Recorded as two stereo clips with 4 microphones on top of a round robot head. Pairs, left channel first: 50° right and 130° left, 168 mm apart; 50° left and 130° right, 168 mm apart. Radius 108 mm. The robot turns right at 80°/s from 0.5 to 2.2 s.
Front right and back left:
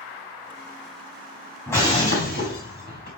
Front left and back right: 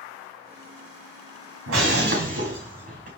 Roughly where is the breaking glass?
Behind right.